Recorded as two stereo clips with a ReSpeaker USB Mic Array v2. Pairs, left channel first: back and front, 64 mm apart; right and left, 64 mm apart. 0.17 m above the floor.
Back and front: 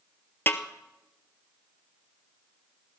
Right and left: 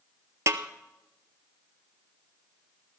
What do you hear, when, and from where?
0.5 s a snare drum: 125° left, 0.9 m